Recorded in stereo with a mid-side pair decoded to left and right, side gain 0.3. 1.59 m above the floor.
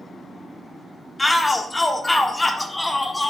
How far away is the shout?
About 0.9 m.